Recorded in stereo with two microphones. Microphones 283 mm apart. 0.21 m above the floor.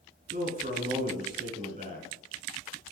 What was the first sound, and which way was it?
A man speaking, 25° right (ahead or behind).